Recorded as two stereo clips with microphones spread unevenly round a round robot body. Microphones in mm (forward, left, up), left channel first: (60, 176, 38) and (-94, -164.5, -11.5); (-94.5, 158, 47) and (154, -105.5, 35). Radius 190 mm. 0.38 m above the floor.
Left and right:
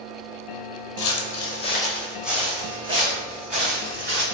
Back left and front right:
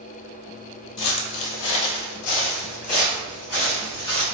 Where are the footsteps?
100° left, 0.7 m; by 4.2 s straight behind, 2.0 m.